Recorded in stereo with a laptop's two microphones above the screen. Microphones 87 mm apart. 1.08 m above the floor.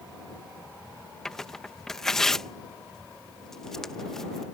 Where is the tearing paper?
5° left (ahead or behind).